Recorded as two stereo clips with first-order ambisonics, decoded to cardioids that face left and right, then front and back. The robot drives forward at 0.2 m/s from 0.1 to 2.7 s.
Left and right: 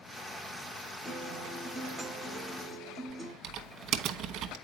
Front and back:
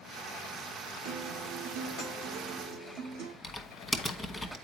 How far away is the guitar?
About 1.6 m.